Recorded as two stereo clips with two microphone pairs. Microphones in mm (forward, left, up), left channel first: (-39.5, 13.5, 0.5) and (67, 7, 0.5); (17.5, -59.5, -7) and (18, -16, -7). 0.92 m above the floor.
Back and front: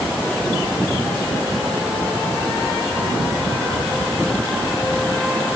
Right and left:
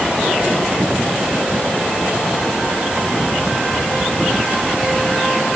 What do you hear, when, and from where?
Only background noise.